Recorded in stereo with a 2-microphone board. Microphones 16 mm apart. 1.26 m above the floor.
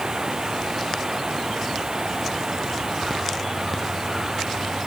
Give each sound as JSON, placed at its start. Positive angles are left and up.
{"t": 0.0, "sound": "running water", "side_deg": -40}